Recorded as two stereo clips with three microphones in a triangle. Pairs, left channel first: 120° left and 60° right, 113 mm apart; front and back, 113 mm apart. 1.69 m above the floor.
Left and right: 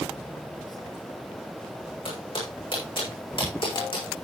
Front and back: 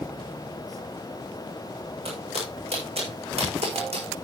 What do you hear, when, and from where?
2.0 s footsteps: 155° left, 7.5 m; by 4.2 s 165° left, 6.5 m